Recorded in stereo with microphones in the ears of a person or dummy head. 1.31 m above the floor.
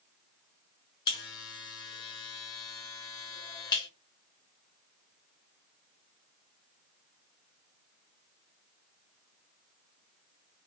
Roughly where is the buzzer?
Left.